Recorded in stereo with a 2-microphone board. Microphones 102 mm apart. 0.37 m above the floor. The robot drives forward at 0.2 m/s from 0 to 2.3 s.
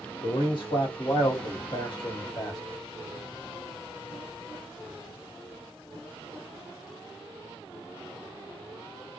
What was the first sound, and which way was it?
A man speaking, 50° left (ahead or behind).